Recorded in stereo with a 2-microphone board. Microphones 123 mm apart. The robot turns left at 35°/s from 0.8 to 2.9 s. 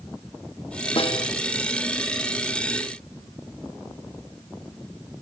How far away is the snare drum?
About 1.3 m.